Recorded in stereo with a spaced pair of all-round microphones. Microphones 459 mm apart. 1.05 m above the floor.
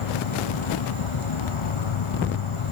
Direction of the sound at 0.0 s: 80° left.